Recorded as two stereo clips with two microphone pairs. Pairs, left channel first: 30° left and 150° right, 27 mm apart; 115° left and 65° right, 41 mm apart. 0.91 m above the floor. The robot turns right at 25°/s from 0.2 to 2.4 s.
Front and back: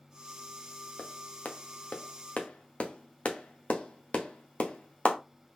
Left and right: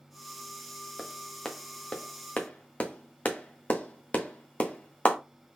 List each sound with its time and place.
1.0 s a clap: 30° left, 0.9 m; by 5.2 s 65° left, 0.9 m